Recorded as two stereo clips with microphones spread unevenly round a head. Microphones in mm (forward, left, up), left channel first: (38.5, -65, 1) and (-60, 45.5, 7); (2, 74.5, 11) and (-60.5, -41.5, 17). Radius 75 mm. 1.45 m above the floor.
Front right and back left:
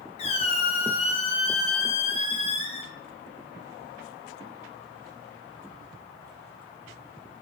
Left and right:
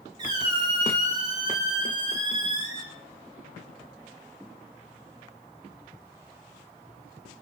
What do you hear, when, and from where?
0.2 s a squeak: 75° right, 0.5 m